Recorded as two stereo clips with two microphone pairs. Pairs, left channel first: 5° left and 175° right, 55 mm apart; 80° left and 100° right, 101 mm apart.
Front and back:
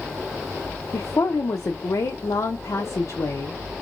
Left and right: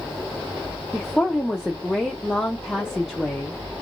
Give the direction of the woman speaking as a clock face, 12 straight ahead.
12 o'clock.